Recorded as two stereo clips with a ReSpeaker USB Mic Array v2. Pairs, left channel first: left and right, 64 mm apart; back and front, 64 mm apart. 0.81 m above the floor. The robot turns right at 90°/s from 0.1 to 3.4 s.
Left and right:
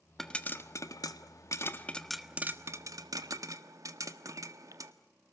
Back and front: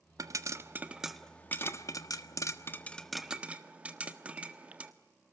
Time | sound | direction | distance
0.2 | a pop | 5° left | 1.4 m